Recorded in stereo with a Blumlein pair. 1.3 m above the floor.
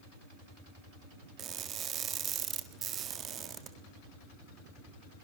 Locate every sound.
1.4 s crushing: 25° right, 1.7 m